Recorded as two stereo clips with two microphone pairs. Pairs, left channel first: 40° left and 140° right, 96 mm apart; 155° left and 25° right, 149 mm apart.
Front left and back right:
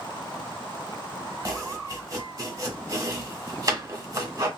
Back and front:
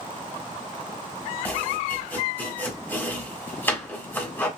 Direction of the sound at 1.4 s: 140° right.